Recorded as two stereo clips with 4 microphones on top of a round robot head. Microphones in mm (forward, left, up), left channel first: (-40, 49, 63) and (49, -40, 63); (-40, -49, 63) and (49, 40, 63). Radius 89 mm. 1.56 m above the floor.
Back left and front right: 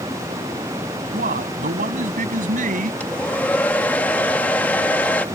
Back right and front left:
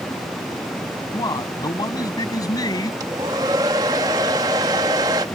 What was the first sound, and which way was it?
A man speaking, 70° right.